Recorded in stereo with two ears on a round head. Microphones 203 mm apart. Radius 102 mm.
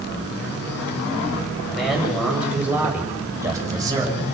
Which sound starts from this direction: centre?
A man speaking, at 1.7 s.